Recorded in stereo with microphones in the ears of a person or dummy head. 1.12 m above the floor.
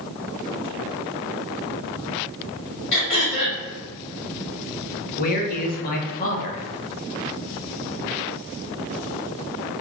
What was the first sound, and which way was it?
Throat clearing, 60° left (ahead or behind).